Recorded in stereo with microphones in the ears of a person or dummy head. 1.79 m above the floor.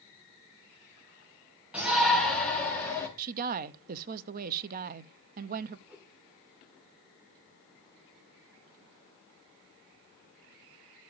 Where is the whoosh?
5° right (ahead or behind), 3 m.